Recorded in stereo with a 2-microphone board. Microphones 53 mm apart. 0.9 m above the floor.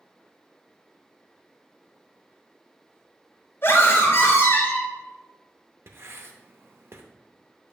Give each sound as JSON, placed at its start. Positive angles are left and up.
{"t": 3.6, "sound": "a scream", "side_deg": 50, "distance_m": 3.0}
{"t": 5.9, "sound": "writing", "side_deg": -50, "distance_m": 0.6}